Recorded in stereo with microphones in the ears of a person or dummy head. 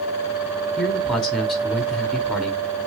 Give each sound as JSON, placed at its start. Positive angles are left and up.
{"t": 0.8, "sound": "a man speaking", "side_deg": 0, "distance_m": 1.0}